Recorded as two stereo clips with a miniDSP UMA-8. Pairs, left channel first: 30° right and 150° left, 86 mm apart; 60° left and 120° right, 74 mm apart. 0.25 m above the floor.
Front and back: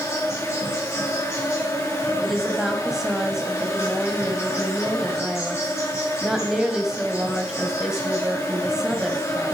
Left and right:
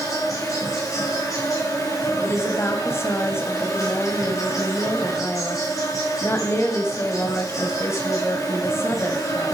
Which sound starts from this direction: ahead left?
An insect, at 0.0 s.